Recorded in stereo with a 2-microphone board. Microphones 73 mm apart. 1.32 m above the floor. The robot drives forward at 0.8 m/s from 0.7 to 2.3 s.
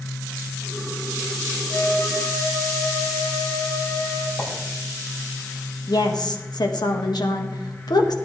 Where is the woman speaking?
65° left (ahead or behind), 1.5 m.